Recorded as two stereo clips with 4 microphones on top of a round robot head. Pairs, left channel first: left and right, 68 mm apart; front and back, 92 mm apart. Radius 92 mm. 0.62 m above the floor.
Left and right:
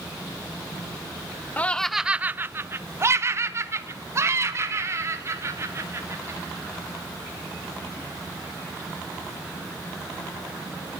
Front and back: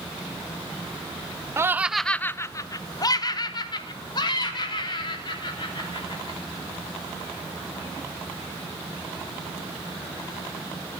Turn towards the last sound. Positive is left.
turn(degrees=-40)